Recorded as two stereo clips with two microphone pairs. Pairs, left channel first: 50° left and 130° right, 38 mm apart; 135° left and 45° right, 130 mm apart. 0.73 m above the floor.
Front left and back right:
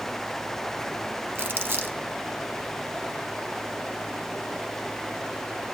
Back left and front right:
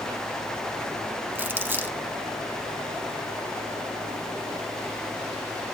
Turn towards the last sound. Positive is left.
turn(degrees=-120)